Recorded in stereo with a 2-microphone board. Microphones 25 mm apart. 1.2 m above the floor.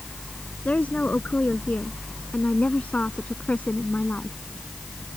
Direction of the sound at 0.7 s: 75° left (ahead or behind).